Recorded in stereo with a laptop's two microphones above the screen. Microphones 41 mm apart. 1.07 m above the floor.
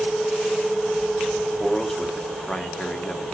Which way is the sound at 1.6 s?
10° left (ahead or behind).